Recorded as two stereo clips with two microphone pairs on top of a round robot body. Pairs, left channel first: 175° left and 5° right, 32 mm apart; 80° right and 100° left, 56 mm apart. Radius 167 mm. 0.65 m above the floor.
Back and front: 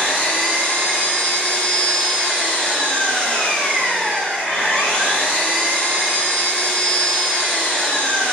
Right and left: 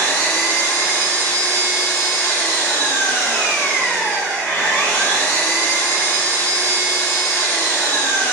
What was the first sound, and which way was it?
An engine running, 150° right.